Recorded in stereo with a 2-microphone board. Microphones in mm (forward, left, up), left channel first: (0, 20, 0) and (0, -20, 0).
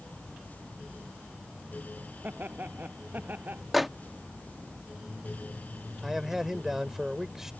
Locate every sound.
2.2 s laughter: 50° right (ahead or behind)
3.7 s a microwave: centre (ahead or behind)
6.0 s a man speaking: 10° right (ahead or behind)